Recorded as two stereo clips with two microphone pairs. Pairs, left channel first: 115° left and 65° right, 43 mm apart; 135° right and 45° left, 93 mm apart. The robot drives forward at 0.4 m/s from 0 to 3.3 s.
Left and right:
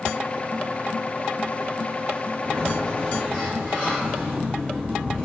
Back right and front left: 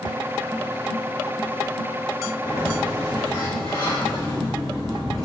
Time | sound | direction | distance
2.4 | a sliding door | 175° right | 1.5 m